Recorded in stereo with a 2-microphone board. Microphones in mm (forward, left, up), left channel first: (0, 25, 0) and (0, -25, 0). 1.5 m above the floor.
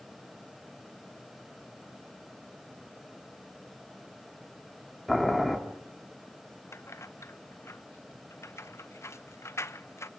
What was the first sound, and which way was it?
Boiling, centre (ahead or behind).